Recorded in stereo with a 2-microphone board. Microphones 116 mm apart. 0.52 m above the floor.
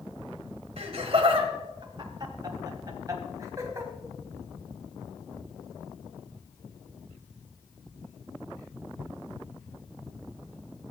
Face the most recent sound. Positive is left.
turn(degrees=-25)  # may be behind; listen again after turning